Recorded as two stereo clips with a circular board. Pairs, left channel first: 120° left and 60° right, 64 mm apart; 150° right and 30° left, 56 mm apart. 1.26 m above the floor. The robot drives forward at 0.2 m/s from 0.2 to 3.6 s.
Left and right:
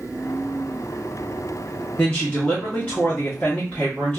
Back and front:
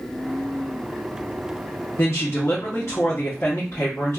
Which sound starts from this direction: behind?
A woman speaking, at 2.0 s.